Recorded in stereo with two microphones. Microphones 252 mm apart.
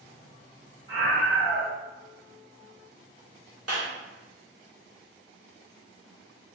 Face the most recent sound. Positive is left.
turn(degrees=-70)  # may be behind; listen again after turning